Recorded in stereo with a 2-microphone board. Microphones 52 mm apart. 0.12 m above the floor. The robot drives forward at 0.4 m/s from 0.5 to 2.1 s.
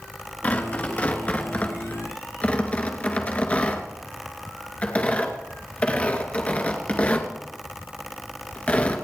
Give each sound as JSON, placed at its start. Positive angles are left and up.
{"t": 0.4, "sound": "tearing paper", "side_deg": 30, "distance_m": 2.0}